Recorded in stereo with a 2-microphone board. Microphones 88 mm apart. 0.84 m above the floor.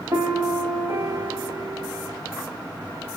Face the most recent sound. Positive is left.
turn(degrees=-45)  # may be behind; listen again after turning